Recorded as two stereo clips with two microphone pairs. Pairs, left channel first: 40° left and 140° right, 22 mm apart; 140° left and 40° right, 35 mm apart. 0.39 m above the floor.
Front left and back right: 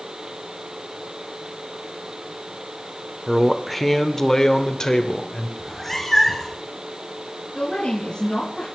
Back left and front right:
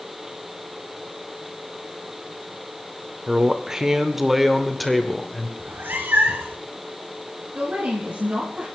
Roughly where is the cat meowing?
Ahead right.